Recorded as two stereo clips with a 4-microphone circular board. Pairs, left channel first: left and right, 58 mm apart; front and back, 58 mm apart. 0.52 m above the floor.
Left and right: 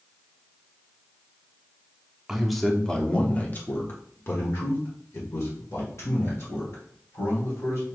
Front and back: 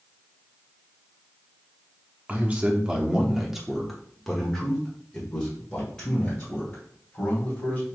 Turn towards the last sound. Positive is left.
turn(degrees=70)